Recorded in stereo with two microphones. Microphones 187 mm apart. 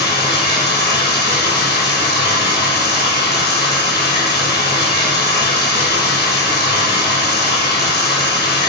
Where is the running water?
70° left (ahead or behind), 1.1 m.